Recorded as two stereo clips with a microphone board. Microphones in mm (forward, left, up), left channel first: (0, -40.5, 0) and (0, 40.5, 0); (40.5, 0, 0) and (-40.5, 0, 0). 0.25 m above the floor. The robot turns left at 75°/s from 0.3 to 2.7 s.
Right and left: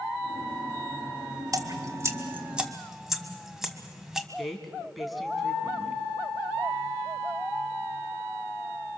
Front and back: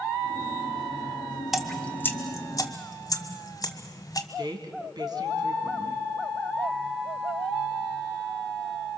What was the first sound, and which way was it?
Dripping, 95° left.